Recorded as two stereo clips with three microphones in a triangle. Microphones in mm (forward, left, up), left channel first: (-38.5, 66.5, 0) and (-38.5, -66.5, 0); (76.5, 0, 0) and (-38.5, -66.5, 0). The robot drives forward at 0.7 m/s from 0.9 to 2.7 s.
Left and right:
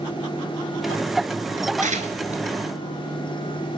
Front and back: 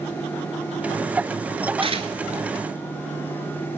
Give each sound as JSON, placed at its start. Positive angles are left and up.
{"t": 1.8, "sound": "tearing paper", "azimuth_deg": -105, "distance_m": 1.3}